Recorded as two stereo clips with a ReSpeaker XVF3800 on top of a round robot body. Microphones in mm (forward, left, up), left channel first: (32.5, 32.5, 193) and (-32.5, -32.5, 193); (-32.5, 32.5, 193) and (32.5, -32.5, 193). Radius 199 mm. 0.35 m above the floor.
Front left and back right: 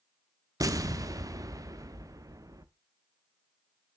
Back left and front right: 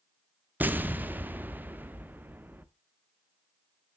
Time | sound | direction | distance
0.6 | an explosion | 105° right | 1.2 m